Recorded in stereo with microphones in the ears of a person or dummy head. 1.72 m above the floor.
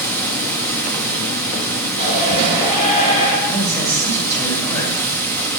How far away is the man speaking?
About 6.5 m.